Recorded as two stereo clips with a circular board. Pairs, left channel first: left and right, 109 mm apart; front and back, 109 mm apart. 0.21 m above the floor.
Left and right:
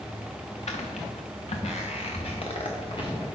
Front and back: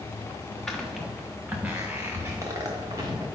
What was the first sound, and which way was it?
Footsteps, 85° left.